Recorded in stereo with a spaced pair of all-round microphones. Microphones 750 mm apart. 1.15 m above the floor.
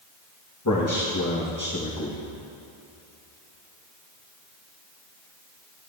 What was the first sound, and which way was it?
A man speaking, 25° left (ahead or behind).